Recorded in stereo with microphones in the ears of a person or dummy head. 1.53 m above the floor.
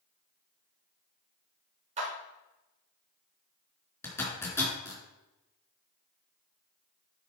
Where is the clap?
40° right (ahead or behind), 3 m.